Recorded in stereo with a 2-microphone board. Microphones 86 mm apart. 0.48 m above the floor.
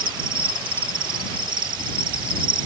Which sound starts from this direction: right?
An insect, at 0.0 s.